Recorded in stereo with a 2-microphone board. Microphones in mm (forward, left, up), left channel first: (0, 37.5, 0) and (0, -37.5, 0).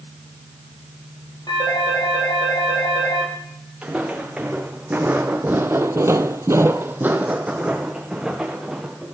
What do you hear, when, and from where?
1.5 s a phone ringing: 90° left, 10 m
3.8 s footsteps: 15° right (ahead or behind), 2.5 m; by 9.2 s 5° right (ahead or behind), 2.5 m